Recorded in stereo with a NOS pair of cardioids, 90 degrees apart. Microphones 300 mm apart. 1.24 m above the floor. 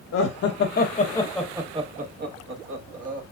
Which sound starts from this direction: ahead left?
Laughter, at 0.1 s.